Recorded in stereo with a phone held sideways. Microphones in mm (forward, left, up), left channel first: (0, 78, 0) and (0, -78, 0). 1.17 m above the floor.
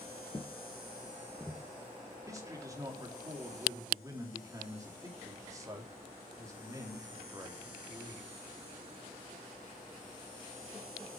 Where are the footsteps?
35° left (ahead or behind), 1.3 m; by 1.6 s centre (ahead or behind), 1.1 m.